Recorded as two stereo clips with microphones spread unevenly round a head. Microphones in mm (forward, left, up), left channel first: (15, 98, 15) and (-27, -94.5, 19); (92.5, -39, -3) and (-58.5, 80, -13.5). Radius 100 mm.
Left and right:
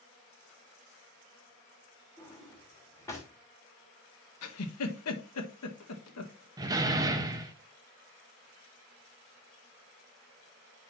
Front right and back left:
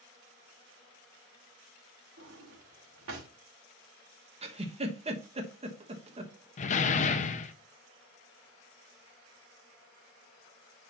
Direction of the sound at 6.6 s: 40° right.